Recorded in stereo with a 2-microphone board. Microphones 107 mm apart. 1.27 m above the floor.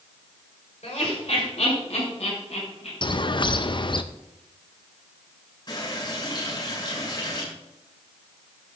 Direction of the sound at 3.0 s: 45° left (ahead or behind).